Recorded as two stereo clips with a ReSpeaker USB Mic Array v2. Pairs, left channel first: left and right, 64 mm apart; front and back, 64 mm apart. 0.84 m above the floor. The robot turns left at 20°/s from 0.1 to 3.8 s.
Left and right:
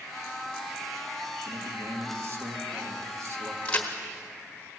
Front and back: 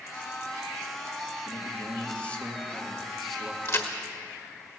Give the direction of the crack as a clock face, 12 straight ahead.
11 o'clock.